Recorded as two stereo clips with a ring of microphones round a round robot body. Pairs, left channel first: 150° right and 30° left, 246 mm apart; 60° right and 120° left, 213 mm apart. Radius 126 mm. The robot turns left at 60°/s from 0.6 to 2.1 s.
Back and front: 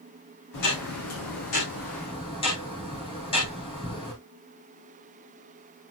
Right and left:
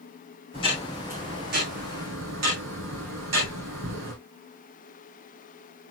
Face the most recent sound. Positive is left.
turn(degrees=140)